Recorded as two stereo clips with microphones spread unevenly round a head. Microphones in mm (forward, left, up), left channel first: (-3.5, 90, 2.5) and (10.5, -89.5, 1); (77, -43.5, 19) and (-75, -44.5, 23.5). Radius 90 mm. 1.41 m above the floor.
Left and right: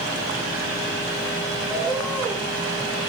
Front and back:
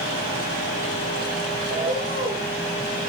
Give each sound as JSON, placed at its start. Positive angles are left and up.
{"t": 1.7, "sound": "a bird", "azimuth_deg": -155, "distance_m": 4.0}